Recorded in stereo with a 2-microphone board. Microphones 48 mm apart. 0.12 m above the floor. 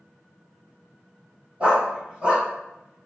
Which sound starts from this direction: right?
A dog barking, at 1.6 s.